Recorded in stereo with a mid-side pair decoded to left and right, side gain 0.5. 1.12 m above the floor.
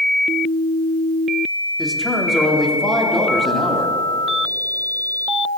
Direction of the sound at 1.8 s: 5° left.